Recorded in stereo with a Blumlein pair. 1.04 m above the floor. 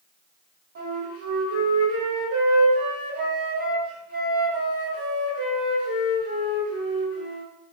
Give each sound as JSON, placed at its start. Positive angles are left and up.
{"t": 0.8, "sound": "a flute", "azimuth_deg": -60, "distance_m": 1.3}